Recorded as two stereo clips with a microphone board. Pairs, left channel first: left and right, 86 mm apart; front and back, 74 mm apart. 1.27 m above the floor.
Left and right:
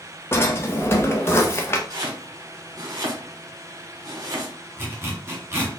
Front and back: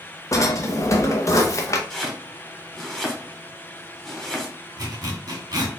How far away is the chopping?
About 1.1 m.